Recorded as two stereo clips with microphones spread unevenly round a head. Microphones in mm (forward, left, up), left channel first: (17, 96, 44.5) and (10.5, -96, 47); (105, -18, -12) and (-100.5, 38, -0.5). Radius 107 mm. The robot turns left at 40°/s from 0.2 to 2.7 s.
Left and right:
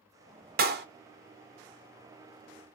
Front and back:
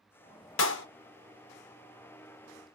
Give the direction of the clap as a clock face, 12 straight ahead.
2 o'clock.